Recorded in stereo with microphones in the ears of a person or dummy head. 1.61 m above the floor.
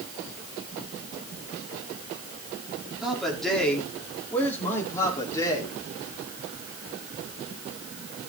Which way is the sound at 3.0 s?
Centre (ahead or behind).